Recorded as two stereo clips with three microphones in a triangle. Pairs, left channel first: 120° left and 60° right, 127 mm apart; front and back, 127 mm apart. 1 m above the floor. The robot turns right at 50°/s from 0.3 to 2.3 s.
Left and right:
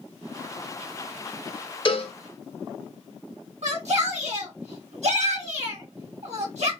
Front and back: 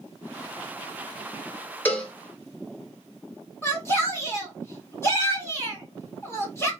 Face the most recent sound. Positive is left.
turn(degrees=-70)